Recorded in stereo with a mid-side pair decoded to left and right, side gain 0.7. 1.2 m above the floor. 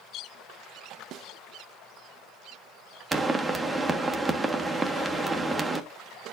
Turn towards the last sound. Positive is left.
turn(degrees=-15)